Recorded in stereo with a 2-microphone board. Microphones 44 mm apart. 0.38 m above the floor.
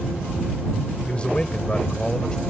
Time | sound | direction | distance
1.1 | a man speaking | 25° left (ahead or behind) | ?